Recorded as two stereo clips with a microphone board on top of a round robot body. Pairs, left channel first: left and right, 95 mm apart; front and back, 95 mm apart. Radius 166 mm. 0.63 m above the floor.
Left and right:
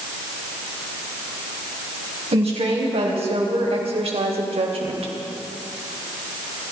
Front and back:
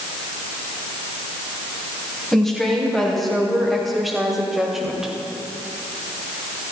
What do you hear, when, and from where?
2.3 s a woman speaking: 85° right, 4 m; by 5.1 s 95° right, 3 m